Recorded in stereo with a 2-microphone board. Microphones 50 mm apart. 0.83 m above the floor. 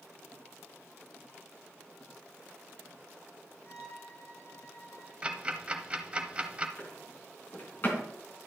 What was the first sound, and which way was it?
A violin, 80° left.